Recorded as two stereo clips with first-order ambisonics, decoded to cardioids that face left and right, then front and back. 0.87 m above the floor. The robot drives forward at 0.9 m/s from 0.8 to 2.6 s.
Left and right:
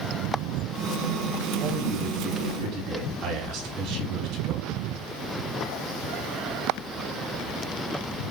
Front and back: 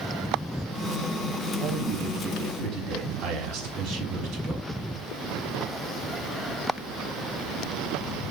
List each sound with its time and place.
1.6 s a man speaking: 140° right, 5 m; by 4.6 s 145° right, 5.5 m